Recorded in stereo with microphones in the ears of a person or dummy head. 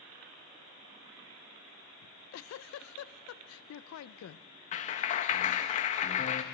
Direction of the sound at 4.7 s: 35° left (ahead or behind).